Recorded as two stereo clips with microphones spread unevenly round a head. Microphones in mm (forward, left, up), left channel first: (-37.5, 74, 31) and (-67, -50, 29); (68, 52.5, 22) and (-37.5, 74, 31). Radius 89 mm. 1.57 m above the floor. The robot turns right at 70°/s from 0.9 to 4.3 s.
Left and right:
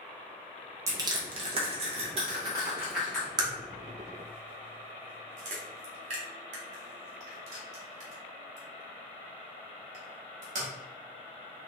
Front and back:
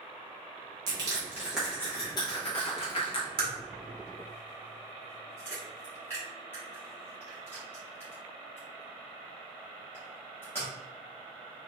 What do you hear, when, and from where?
0.9 s crushing: 160° right, 0.8 m; by 3.3 s 5° left, 0.8 m
3.4 s a crack: 155° right, 0.9 m; by 10.7 s 90° right, 0.9 m